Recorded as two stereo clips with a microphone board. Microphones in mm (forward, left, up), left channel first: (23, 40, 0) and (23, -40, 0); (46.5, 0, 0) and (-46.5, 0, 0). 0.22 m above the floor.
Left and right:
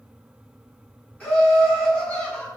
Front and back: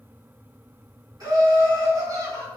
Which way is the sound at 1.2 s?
155° left.